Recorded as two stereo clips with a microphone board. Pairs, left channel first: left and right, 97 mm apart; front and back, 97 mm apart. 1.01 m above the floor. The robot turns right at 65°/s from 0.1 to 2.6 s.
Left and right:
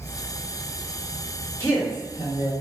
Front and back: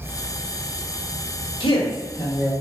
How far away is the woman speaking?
About 1.2 m.